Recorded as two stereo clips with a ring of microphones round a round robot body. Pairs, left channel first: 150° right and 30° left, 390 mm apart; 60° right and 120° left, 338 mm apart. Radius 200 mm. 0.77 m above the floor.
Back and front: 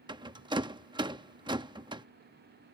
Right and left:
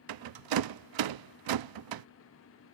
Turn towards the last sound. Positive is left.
turn(degrees=110)